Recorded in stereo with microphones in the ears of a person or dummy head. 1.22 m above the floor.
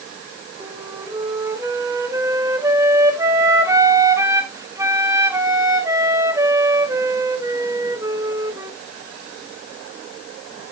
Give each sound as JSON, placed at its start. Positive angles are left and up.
{"t": 0.6, "sound": "a flute", "side_deg": -15, "distance_m": 1.3}